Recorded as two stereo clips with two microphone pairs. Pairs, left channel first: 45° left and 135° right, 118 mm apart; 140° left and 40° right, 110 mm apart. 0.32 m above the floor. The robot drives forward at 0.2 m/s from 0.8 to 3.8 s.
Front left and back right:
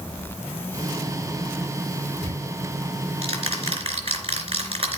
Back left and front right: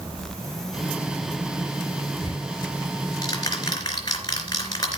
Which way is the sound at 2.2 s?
170° right.